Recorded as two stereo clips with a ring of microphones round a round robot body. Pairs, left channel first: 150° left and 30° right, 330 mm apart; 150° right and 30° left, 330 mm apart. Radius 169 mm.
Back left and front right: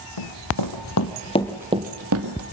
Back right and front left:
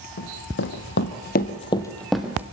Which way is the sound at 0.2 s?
155° left.